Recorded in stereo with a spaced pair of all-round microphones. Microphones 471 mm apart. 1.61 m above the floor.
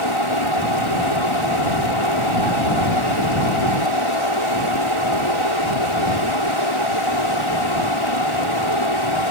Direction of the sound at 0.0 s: 75° left (ahead or behind).